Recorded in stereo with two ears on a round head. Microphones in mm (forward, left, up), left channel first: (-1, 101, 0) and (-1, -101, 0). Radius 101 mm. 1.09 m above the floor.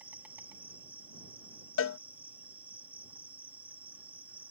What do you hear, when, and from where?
0.0 s an insect: 10° right (ahead or behind)
1.8 s a cowbell: 65° left (ahead or behind)